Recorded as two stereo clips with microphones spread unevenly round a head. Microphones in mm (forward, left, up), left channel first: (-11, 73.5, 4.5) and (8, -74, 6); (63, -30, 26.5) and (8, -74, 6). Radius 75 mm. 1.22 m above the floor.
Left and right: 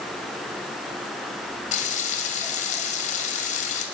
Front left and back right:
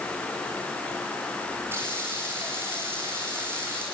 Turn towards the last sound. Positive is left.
turn(degrees=140)